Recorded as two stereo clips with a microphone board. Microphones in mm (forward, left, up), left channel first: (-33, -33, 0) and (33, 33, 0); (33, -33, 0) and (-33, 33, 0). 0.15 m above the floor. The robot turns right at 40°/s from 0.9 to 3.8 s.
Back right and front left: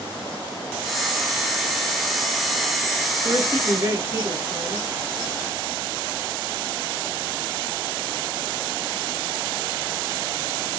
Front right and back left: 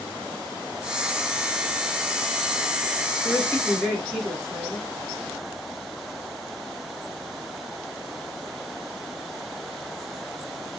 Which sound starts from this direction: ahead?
A woman speaking, at 3.2 s.